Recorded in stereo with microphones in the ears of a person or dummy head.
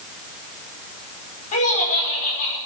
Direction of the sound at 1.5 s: 35° left (ahead or behind).